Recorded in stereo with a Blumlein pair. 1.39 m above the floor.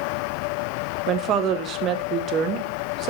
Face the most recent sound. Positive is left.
turn(degrees=-30)